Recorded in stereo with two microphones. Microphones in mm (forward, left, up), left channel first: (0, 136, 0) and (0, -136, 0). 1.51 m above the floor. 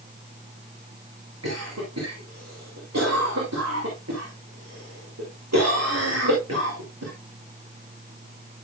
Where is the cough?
80° right, 3.5 m.